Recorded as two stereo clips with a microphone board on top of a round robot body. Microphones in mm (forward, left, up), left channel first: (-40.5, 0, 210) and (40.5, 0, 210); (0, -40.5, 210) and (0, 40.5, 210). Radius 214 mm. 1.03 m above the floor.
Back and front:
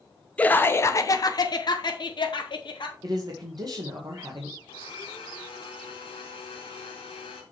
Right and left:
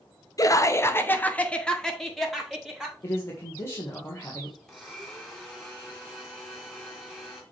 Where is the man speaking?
35° right, 1.6 m.